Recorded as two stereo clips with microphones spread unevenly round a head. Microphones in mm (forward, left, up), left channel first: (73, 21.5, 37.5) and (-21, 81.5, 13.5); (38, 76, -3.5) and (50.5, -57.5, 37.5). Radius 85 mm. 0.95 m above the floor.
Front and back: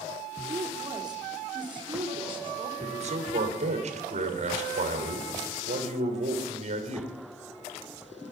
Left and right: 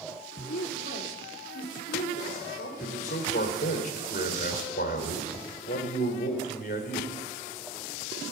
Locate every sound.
0.5 s a woman speaking: 95° left, 2.5 m; by 2.7 s 110° left, 3.5 m
2.8 s a man speaking: 135° left, 3 m